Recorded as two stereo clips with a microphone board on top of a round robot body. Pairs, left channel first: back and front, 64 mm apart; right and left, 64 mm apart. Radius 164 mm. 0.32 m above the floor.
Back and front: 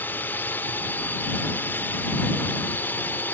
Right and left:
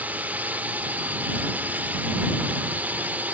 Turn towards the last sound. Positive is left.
turn(degrees=140)